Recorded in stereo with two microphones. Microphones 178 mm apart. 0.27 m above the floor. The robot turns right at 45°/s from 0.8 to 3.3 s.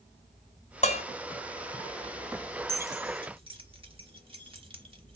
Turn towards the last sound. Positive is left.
turn(degrees=-35)  # may be behind; listen again after turning